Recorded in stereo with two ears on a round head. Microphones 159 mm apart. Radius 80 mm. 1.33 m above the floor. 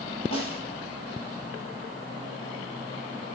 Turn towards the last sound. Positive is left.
turn(degrees=35)  # may be behind; listen again after turning